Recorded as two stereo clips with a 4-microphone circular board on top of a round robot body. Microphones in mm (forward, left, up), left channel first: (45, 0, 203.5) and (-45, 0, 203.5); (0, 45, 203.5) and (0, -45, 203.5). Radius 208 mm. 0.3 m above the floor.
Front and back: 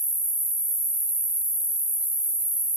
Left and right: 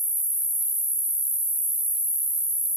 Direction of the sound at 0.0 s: 110° left.